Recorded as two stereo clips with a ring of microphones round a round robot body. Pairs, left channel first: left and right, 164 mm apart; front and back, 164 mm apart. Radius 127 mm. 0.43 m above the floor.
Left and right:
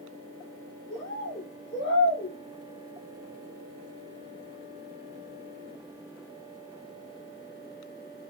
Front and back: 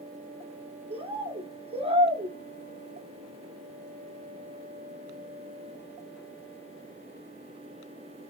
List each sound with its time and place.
0.9 s a bird: 125° left, 1.3 m